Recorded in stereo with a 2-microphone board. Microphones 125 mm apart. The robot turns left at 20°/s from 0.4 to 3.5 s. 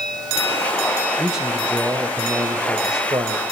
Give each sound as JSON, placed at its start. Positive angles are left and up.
{"t": 1.2, "sound": "a man speaking", "azimuth_deg": 0, "distance_m": 1.3}